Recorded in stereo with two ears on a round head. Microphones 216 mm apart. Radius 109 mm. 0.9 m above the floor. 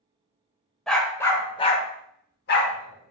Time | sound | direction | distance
0.9 | a dog barking | centre (ahead or behind) | 0.9 m